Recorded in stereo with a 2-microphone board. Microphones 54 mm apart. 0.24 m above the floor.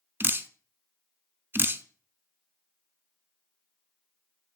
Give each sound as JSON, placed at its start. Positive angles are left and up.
{"t": 0.2, "sound": "dripping", "side_deg": -40, "distance_m": 0.6}